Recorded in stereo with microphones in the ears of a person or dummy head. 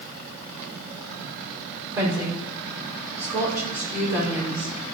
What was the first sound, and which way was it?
A woman speaking, 15° right (ahead or behind).